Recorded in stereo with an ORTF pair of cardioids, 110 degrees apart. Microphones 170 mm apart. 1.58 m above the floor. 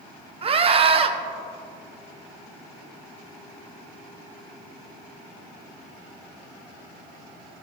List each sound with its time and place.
0.4 s a scream: 35° right, 0.9 m